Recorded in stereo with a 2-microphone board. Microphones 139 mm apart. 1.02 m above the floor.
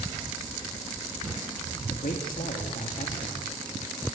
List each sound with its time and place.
1.9 s a man speaking: 75° left (ahead or behind), 1.9 m